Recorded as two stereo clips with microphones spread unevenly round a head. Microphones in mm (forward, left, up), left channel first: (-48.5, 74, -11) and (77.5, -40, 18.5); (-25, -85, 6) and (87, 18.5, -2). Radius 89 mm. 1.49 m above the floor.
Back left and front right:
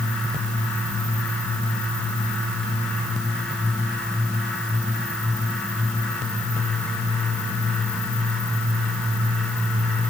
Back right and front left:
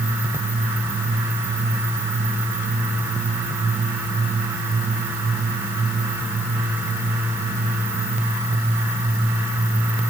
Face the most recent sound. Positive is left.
No sound to turn to.